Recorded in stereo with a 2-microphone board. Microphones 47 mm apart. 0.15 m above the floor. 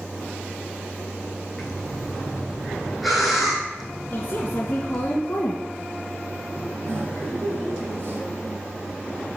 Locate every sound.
1.6 s breathing: 5° right (ahead or behind), 2.5 m
4.1 s a woman speaking: 35° left (ahead or behind), 1.6 m
6.8 s laughter: 55° right (ahead or behind), 2.5 m